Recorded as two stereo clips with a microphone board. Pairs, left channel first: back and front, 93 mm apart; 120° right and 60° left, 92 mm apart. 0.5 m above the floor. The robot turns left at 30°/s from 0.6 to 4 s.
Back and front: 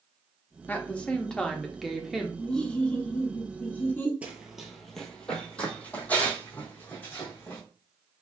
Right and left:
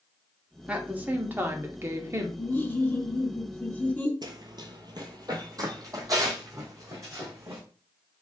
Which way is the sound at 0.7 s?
125° left.